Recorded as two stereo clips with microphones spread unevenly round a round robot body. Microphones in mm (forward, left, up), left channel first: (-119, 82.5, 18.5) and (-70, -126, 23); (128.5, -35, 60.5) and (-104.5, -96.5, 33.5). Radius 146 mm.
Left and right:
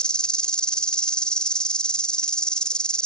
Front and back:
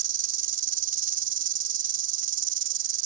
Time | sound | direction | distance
0.0 | an insect | 170° right | ?